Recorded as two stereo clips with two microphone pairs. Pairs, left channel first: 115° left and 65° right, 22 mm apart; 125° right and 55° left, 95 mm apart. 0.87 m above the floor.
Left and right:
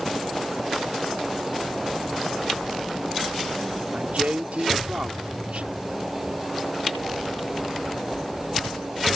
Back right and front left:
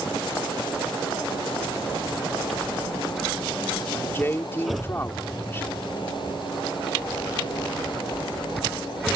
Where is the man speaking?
60° right.